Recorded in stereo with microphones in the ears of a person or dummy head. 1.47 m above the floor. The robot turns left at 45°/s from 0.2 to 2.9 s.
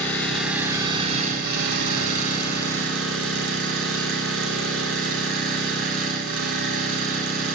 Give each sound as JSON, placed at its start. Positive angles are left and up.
{"t": 0.0, "sound": "an engine running", "azimuth_deg": 0, "distance_m": 3.5}